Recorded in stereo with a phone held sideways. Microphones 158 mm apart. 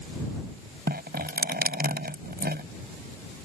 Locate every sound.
0.9 s dripping: 70° right (ahead or behind)